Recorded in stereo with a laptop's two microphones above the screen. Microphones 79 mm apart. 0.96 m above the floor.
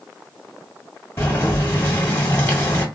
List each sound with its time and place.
1.2 s boiling: 35° left (ahead or behind), 1.7 m